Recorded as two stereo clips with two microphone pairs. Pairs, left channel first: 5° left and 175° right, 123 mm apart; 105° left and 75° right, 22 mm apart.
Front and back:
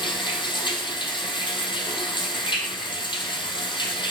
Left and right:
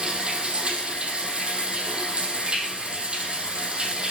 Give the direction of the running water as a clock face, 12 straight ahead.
1 o'clock.